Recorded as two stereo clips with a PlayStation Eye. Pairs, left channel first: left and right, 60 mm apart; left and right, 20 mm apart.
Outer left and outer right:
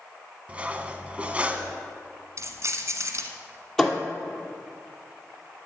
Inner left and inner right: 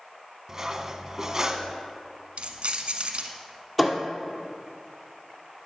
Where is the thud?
5° left (ahead or behind), 2 m.